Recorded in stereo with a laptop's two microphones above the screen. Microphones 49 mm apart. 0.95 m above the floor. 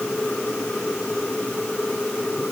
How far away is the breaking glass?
No breaking glass in this recording.